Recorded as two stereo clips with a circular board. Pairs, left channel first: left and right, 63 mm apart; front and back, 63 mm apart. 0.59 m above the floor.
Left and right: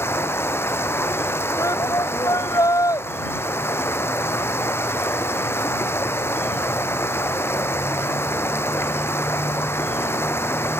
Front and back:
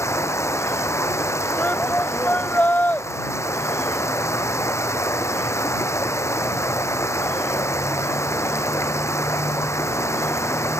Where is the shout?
65° left.